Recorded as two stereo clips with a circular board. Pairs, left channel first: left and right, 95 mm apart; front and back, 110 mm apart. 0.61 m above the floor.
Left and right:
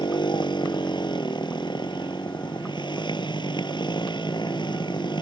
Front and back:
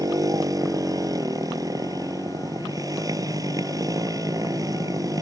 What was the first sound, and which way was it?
A motorcycle, 125° left.